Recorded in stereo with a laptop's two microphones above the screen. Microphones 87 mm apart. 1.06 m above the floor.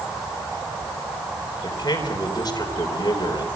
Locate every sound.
1.6 s a man speaking: 45° left (ahead or behind), 4 m